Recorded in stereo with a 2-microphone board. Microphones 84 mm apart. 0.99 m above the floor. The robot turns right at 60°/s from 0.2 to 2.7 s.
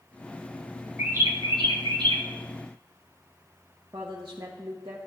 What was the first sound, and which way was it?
A bird, 155° right.